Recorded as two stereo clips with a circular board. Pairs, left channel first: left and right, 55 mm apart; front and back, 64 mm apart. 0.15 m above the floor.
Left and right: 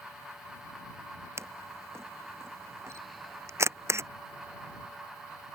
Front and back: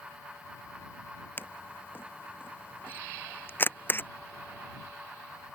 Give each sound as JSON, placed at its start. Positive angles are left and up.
{"t": 1.4, "sound": "a camera shutter", "azimuth_deg": -55}